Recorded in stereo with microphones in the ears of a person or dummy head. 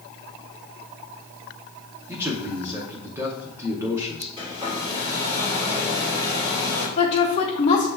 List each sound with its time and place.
2.1 s a man speaking: 15° right (ahead or behind), 0.7 m
4.4 s a hair dryer: 25° right (ahead or behind), 2 m
7.0 s a woman speaking: 35° left (ahead or behind), 1.0 m